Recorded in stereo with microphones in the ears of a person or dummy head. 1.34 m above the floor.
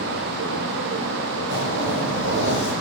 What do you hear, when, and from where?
1.5 s a zipper: 75° right (ahead or behind), 9.5 m